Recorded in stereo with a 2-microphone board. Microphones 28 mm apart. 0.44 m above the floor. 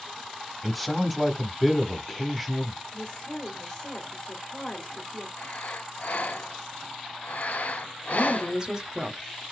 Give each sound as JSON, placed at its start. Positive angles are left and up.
{"t": 0.6, "sound": "a man speaking", "side_deg": 0, "distance_m": 0.9}
{"t": 2.9, "sound": "a woman speaking", "side_deg": 20, "distance_m": 1.4}
{"t": 5.4, "sound": "breathing", "side_deg": 65, "distance_m": 0.5}
{"t": 8.1, "sound": "a woman speaking", "side_deg": -25, "distance_m": 1.0}